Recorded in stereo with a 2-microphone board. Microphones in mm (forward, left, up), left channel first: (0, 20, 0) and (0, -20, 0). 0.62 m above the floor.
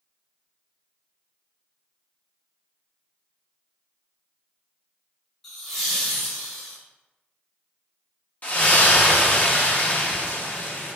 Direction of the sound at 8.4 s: 40° left (ahead or behind).